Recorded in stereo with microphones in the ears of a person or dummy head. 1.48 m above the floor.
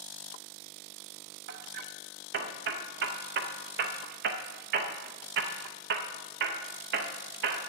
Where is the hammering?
60° right (ahead or behind), 0.6 m.